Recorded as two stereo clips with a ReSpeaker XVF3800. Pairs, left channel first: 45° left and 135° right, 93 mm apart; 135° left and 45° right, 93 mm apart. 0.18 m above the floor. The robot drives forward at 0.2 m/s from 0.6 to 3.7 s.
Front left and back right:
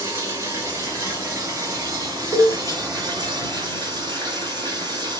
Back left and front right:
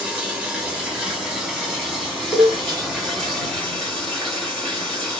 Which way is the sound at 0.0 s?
120° right.